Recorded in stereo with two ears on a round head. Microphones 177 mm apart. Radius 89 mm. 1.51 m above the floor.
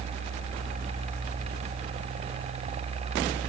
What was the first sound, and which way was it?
Only background noise.